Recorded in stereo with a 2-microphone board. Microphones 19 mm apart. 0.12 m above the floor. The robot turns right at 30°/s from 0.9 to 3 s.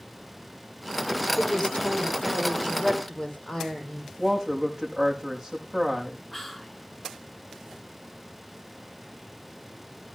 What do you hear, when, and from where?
1.4 s a woman speaking: 100° left, 5 m; by 4.1 s 150° left, 5 m
4.2 s a woman speaking: 15° right (ahead or behind), 5.5 m
6.3 s whispering: 15° left (ahead or behind), 1.3 m